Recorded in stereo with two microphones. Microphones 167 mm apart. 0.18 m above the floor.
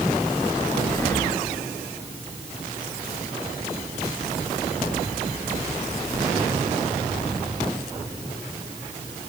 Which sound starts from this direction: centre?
Breathing, at 0.9 s.